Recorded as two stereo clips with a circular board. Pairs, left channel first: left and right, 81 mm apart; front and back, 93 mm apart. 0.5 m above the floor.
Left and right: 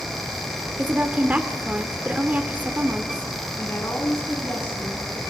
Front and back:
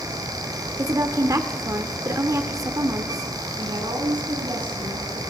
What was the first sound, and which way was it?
A woman speaking, 150° right.